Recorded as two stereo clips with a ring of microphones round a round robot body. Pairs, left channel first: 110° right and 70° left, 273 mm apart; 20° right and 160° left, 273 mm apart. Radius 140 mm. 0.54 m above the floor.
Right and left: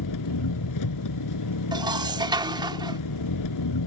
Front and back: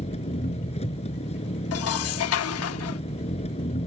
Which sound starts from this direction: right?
An engine running, at 0.0 s.